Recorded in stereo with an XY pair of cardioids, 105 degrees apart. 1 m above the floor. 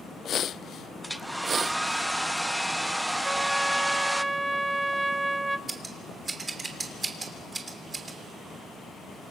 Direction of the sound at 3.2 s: 15° right.